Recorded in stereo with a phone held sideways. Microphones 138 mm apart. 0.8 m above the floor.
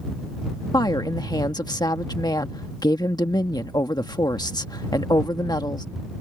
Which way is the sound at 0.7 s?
30° left (ahead or behind).